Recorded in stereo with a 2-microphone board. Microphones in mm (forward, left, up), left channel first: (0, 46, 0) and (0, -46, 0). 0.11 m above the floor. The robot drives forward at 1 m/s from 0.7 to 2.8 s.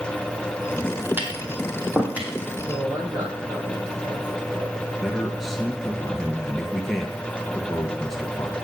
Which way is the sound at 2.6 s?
50° right (ahead or behind).